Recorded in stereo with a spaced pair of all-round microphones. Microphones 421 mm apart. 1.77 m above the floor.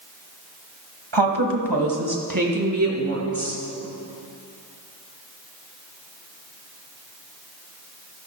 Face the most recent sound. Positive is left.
turn(degrees=-30)  # may be behind; listen again after turning